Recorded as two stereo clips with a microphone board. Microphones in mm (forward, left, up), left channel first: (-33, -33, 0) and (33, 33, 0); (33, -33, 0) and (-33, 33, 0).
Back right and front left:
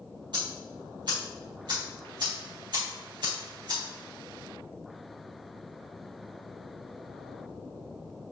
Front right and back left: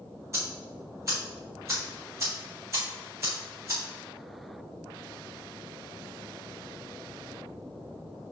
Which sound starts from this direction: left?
Ticking, at 0.3 s.